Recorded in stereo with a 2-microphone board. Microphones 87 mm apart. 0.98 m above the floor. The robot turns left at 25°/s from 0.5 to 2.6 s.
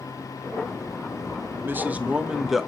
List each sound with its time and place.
1.6 s a man speaking: 25° right (ahead or behind), 0.8 m; by 2.7 s 5° right (ahead or behind), 0.8 m